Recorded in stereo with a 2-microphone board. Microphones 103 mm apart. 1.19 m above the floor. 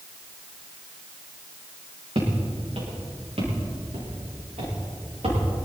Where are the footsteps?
65° right (ahead or behind), 6.5 m; by 5.6 s 85° right, 9 m.